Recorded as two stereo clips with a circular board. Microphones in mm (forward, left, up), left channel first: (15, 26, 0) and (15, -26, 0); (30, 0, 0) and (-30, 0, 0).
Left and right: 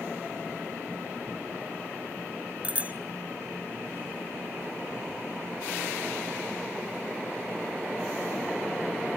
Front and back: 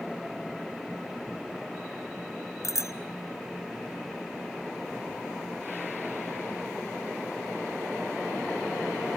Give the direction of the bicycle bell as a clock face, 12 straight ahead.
1 o'clock.